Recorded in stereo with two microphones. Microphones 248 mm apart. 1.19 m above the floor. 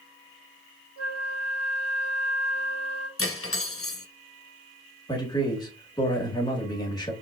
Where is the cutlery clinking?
60° left (ahead or behind), 0.7 m.